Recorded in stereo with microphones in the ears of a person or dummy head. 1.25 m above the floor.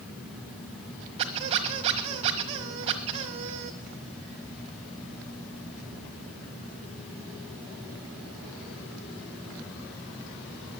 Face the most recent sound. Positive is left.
turn(degrees=-25)  # may be behind; listen again after turning